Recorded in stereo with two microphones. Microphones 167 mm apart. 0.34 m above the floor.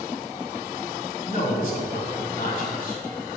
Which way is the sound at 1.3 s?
55° left (ahead or behind).